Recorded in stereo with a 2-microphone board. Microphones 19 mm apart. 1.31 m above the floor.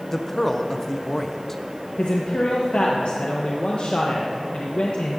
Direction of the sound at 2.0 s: 65° left (ahead or behind).